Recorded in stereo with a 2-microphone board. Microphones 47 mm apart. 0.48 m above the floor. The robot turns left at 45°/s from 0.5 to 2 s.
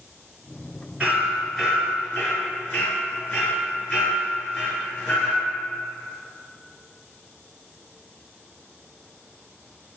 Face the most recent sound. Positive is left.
turn(degrees=20)  # may be behind; listen again after turning